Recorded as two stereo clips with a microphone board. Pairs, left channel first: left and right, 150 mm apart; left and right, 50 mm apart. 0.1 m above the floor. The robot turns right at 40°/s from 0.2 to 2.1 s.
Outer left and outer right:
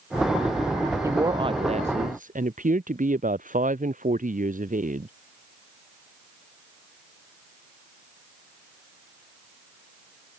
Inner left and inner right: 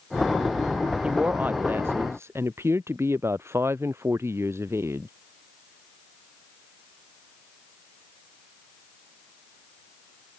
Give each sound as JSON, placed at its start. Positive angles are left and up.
{"t": 1.0, "sound": "a woman speaking", "azimuth_deg": -160}